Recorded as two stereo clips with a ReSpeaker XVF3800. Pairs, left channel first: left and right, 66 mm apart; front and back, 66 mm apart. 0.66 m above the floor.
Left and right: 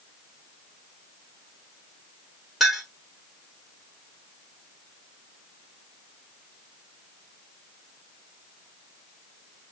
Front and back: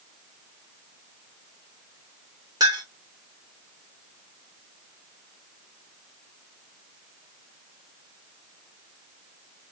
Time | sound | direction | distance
2.6 | a clink | straight behind | 1.7 m